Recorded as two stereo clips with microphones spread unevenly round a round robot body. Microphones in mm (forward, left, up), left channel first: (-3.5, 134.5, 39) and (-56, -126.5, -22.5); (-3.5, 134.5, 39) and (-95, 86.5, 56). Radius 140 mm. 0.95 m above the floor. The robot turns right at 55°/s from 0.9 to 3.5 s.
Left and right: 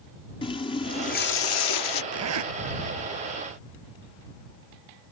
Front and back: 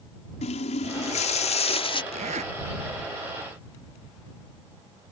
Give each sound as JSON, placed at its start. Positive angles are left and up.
{"t": 0.4, "sound": "a running tap", "azimuth_deg": 5}
{"t": 2.1, "sound": "a zipper", "azimuth_deg": -140}